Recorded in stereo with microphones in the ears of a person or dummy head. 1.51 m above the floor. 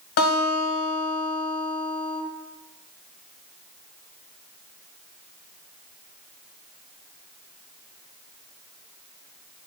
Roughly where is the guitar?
Left.